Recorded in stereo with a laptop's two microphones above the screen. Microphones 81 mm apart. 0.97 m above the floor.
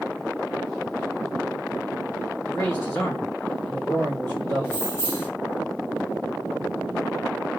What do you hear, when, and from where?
2.5 s a man speaking: 35° left (ahead or behind), 1.3 m
4.6 s keys jangling: 20° left (ahead or behind), 1.1 m